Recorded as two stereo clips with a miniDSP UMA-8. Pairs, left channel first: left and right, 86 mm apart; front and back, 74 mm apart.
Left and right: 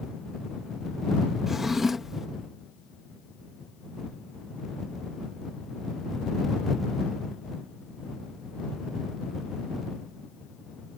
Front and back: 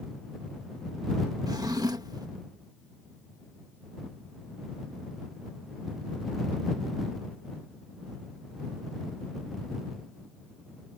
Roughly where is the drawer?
Behind.